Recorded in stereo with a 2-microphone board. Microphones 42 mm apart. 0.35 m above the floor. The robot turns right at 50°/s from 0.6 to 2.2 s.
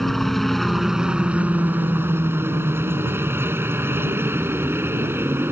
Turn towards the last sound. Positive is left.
turn(degrees=-105)